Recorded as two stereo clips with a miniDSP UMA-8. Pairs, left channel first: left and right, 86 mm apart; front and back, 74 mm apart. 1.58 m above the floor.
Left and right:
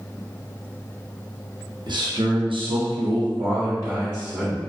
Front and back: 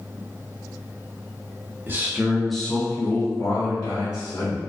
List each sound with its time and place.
1.9 s a man speaking: 120° right, 0.7 m; by 4.6 s 15° right, 1.2 m